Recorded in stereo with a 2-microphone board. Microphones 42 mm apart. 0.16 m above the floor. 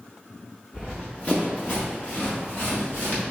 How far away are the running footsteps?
About 1.1 m.